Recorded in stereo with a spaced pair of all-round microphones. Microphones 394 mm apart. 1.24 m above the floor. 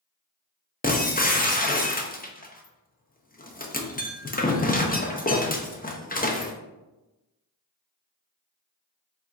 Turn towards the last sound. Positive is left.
turn(degrees=20)  # may be behind; listen again after turning